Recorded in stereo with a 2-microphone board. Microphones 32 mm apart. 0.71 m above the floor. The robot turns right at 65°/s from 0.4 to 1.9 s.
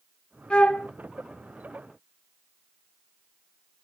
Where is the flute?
30° left (ahead or behind), 0.7 m; by 0.9 s 45° left (ahead or behind), 0.7 m.